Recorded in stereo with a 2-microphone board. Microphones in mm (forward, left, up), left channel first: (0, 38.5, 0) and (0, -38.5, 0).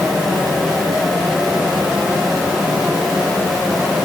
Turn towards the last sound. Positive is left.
No sound to turn to.